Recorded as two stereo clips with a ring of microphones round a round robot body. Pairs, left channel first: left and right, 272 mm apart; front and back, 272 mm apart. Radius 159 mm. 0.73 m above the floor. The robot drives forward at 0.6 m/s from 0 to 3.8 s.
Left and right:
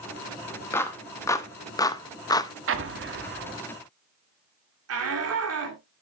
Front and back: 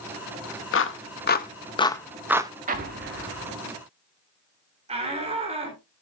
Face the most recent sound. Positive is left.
turn(degrees=-110)